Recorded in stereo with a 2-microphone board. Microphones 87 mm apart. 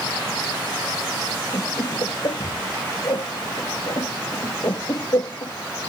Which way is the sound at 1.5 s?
55° left (ahead or behind).